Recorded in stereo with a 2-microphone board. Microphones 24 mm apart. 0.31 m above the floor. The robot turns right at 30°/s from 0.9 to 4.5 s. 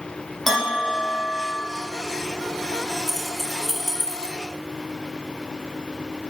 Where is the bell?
5° left (ahead or behind), 6.5 m; by 1.6 s 25° left (ahead or behind), 6.5 m.